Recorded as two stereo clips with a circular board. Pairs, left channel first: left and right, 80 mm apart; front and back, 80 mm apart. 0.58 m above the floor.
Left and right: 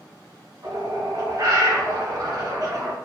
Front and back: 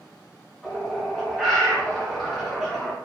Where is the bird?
90° right, 0.9 m.